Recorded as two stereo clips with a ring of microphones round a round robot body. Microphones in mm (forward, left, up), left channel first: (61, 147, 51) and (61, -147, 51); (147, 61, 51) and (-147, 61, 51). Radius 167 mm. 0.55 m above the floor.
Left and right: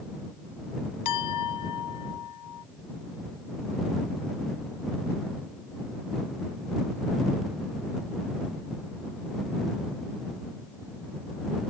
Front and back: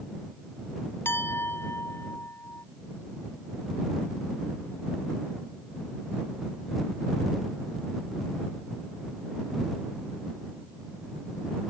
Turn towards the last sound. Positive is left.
turn(degrees=80)